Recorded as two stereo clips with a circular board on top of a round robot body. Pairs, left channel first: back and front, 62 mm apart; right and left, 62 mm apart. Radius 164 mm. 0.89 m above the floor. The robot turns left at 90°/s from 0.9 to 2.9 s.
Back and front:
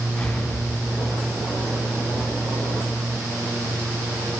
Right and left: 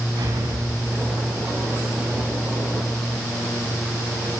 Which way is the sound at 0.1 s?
100° left.